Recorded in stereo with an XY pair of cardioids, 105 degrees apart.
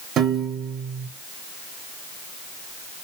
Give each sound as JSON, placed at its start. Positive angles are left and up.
{"t": 0.2, "sound": "a piano", "azimuth_deg": -65, "distance_m": 1.0}